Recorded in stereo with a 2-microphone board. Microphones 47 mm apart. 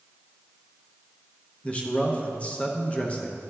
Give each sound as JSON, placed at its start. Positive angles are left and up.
{"t": 1.6, "sound": "a man speaking", "side_deg": 25, "distance_m": 0.7}